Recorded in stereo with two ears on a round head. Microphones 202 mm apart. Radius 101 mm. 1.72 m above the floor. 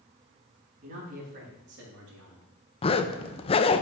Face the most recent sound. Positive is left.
turn(degrees=25)  # may be behind; listen again after turning